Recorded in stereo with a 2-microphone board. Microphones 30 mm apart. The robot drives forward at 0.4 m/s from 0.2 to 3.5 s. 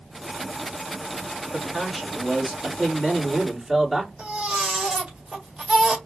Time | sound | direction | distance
1.5 | a man speaking | 5° left (ahead or behind) | 1.9 m
4.2 | a baby crying | 20° right (ahead or behind) | 1.6 m